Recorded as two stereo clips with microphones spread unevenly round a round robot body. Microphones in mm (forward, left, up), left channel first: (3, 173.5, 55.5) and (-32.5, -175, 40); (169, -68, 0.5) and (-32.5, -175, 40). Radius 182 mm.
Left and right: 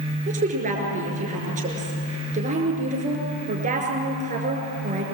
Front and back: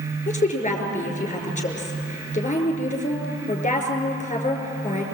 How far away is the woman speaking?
About 5.5 m.